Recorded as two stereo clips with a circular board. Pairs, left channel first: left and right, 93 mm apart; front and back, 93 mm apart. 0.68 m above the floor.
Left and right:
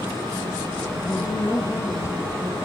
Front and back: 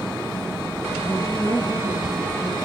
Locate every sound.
1.0 s a woman speaking: 55° left, 3.5 m; by 2.5 s 25° left, 4 m